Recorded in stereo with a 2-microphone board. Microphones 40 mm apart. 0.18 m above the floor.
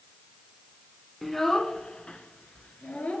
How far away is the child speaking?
About 1.0 m.